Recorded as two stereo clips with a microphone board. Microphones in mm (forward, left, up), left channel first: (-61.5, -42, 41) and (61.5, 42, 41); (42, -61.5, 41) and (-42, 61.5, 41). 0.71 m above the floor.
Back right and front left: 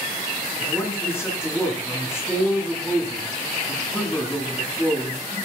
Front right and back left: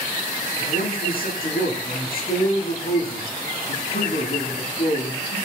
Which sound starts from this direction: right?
A man speaking, at 0.6 s.